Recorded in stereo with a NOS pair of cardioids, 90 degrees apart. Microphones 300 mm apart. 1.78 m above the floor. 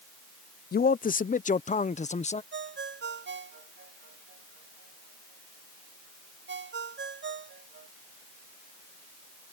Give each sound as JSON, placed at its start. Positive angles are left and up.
{"t": 0.7, "sound": "a man speaking", "azimuth_deg": 30}
{"t": 2.5, "sound": "a ringtone", "azimuth_deg": -40}